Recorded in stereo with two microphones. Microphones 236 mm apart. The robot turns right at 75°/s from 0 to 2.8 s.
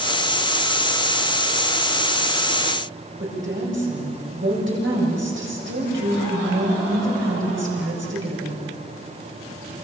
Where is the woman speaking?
55° right (ahead or behind), 8 m.